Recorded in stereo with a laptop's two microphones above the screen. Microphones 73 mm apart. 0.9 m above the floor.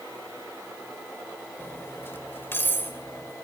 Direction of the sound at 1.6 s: 30° left (ahead or behind).